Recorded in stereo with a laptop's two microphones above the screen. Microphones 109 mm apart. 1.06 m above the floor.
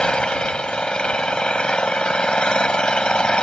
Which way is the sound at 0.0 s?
10° left (ahead or behind).